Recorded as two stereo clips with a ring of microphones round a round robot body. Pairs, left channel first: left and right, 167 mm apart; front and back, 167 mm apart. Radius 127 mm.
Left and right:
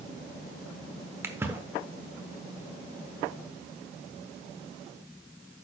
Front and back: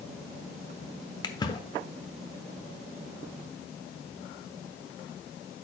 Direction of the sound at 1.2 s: 30° right.